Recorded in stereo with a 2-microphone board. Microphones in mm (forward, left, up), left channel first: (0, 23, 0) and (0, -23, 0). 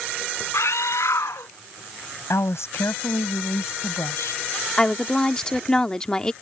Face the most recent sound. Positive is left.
turn(degrees=20)  # may be behind; listen again after turning